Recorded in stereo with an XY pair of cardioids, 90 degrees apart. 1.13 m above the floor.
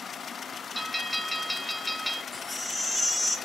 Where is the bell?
Straight ahead, 1.5 m.